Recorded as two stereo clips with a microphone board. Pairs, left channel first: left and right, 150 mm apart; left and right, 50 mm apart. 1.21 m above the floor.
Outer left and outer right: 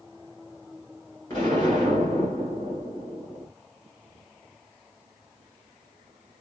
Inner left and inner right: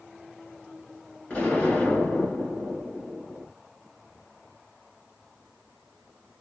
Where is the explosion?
25° left (ahead or behind), 2 m.